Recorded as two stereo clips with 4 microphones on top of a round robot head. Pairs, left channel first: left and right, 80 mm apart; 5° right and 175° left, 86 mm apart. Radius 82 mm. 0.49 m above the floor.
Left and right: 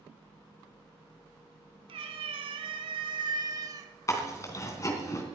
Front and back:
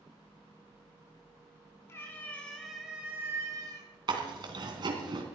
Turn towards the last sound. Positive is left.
turn(degrees=140)